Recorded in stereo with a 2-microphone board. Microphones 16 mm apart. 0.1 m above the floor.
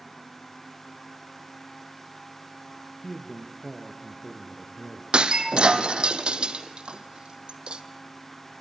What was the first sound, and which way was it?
A man speaking, 10° left (ahead or behind).